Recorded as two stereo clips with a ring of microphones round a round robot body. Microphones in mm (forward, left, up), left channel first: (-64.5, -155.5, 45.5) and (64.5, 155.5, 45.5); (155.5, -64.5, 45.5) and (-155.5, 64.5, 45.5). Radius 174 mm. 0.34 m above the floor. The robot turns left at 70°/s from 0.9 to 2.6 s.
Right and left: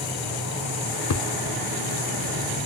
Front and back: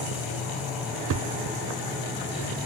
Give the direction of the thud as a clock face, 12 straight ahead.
5 o'clock.